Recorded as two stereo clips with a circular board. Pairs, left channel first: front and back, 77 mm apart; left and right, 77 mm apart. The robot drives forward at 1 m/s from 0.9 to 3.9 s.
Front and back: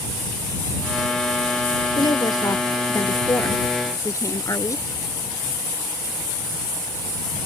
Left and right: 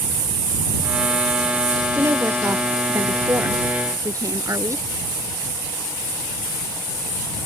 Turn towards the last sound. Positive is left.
turn(degrees=-45)